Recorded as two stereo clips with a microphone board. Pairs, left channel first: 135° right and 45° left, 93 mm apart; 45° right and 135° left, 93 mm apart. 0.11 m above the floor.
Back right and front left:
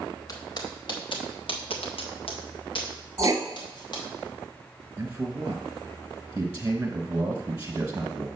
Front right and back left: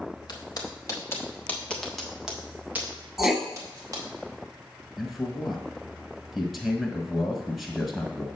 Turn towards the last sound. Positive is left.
turn(degrees=35)